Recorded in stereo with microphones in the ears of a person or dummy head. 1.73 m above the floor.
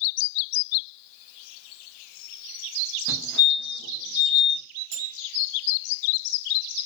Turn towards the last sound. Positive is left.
turn(degrees=-50)  # may be behind; listen again after turning